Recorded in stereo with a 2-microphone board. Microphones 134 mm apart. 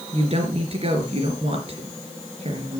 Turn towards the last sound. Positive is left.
turn(degrees=-50)  # may be behind; listen again after turning